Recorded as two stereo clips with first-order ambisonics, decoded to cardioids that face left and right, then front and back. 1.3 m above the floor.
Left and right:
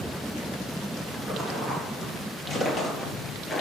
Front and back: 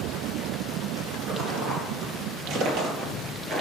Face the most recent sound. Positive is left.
turn(degrees=135)